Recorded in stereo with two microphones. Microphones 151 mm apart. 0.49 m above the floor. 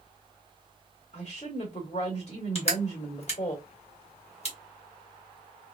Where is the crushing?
45° left (ahead or behind), 1.4 m.